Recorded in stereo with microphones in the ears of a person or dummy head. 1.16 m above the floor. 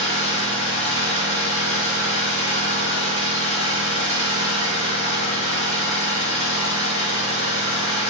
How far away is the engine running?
About 1.7 m.